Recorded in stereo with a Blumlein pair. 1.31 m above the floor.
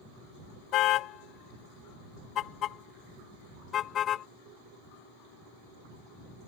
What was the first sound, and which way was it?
A car horn, 35° left.